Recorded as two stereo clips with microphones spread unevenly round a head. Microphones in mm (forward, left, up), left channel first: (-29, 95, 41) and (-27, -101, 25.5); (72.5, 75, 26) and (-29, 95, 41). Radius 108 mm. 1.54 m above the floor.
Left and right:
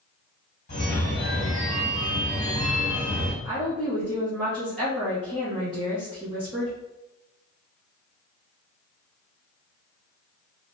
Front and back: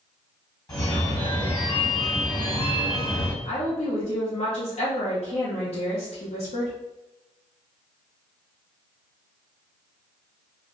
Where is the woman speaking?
5° right, 0.9 m.